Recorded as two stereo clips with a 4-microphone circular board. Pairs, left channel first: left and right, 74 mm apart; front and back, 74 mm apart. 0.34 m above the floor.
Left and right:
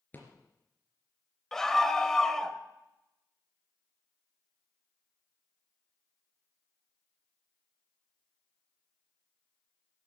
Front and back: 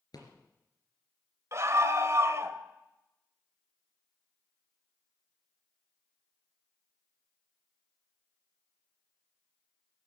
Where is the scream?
170° left, 1.3 m.